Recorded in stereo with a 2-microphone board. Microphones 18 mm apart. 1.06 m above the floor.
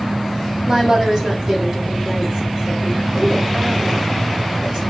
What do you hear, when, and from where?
0.7 s a woman speaking: 35° right (ahead or behind), 3 m